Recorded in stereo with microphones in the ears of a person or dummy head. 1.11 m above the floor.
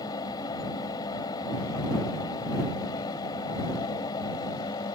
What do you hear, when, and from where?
0.0 s a fan: 20° left (ahead or behind)